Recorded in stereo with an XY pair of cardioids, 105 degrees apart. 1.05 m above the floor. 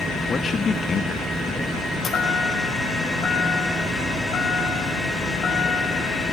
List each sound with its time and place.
0.3 s a man speaking: 40° left, 1.8 m
2.0 s a chime: 45° left, 7.5 m